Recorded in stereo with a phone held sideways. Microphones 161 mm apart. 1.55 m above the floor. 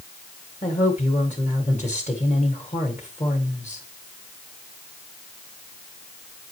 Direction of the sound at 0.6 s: 45° left (ahead or behind).